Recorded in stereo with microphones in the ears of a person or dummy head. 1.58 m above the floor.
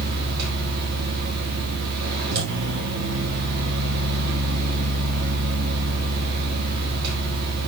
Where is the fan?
55° right (ahead or behind), 4.5 m.